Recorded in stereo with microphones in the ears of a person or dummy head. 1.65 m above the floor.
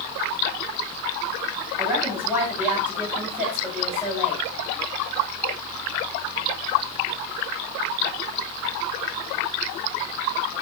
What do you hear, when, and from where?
1.8 s a woman speaking: 10° right (ahead or behind), 8 m